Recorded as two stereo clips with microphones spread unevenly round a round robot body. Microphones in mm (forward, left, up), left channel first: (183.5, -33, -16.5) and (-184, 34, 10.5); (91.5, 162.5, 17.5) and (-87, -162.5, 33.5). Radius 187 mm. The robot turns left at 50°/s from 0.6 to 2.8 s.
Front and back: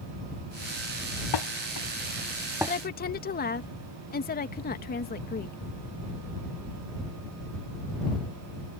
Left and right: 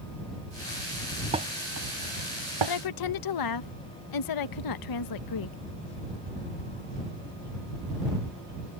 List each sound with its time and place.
1.3 s dishes clattering: 40° right; by 2.8 s 115° right
2.7 s a woman speaking: 55° left; by 5.6 s 50° left